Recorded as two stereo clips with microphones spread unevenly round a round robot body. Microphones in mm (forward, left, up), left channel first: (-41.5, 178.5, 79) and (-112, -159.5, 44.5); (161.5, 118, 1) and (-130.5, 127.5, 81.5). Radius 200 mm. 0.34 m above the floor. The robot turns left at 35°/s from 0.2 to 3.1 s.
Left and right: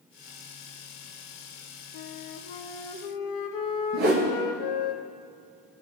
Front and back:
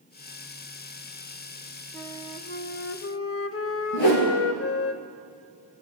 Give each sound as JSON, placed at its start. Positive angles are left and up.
{"t": 1.9, "sound": "a flute", "azimuth_deg": 80, "distance_m": 0.6}
{"t": 3.9, "sound": "a whoosh", "azimuth_deg": -35, "distance_m": 1.7}